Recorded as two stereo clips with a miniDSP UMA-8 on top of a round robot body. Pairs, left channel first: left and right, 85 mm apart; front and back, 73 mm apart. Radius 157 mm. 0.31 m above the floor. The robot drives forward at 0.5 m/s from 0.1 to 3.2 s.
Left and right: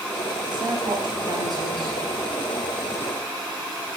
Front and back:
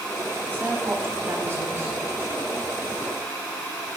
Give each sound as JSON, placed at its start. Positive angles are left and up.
{"t": 0.5, "sound": "a woman speaking", "azimuth_deg": -110, "distance_m": 2.5}